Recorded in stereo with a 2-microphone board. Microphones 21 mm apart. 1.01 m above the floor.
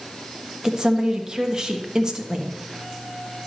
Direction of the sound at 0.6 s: 35° right (ahead or behind).